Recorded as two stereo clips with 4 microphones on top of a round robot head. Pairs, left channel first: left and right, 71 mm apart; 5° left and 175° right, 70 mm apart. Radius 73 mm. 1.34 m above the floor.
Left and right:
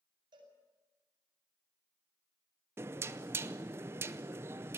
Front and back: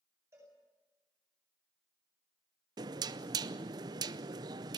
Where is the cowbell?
115° right, 8.5 m.